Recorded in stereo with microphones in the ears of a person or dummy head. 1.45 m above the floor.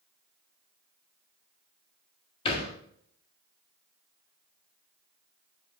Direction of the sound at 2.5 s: 30° left (ahead or behind).